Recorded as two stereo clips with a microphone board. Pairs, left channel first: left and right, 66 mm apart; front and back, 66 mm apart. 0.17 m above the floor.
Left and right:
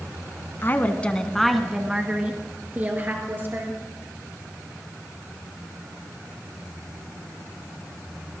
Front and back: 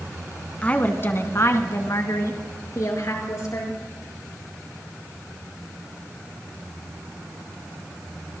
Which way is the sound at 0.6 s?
55° left.